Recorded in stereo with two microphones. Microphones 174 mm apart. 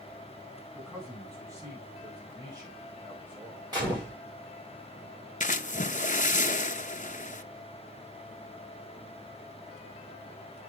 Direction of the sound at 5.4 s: 50° left (ahead or behind).